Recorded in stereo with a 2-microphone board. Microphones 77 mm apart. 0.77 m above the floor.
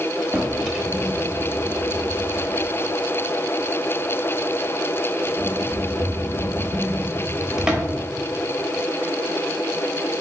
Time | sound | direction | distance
0.3 | a drawer | 10° right (ahead or behind) | 0.7 m